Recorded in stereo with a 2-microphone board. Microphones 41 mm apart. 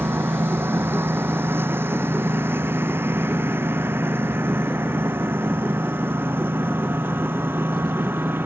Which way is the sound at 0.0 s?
80° right.